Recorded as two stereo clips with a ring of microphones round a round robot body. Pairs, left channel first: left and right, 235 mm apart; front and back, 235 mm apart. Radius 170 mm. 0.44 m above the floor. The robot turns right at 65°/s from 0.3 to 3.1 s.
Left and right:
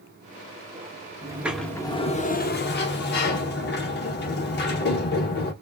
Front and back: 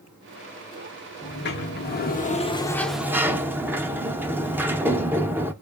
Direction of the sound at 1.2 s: 20° right.